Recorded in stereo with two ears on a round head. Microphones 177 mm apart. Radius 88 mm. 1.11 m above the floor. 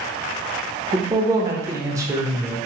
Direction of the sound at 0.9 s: 15° right (ahead or behind).